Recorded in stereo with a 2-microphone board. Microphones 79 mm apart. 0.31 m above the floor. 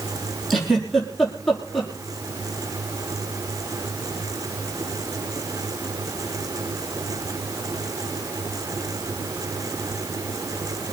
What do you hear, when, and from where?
0.5 s a giggle: centre (ahead or behind), 5.5 m